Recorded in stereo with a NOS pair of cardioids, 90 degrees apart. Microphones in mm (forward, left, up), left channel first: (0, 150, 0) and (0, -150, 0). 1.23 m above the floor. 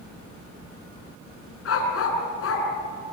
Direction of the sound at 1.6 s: 50° left.